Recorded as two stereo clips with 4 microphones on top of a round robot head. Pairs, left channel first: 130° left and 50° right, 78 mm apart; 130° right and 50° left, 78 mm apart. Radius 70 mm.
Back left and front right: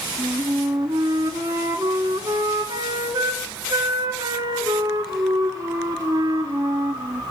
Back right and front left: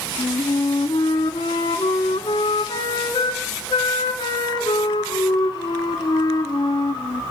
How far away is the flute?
About 1.3 m.